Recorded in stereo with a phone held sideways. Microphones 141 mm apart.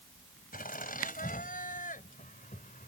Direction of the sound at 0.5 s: 85° left.